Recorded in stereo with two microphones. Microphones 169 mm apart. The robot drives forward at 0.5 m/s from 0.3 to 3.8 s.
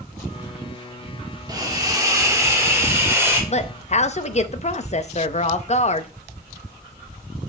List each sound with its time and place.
1.5 s a hiss: 25° right (ahead or behind), 1.3 m; by 3.4 s 15° right (ahead or behind), 2 m
3.5 s a woman speaking: 40° left (ahead or behind), 0.6 m